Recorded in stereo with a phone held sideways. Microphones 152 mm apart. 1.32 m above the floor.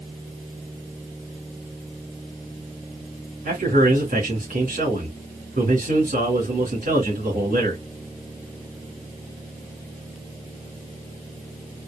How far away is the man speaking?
About 2.5 m.